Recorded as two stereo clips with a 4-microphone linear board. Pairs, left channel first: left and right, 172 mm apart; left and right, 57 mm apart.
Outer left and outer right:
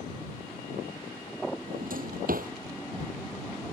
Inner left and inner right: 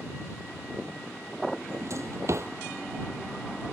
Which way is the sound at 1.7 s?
55° right (ahead or behind).